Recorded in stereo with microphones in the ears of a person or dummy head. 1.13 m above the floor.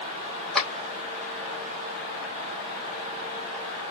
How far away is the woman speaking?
No woman speaking in this recording.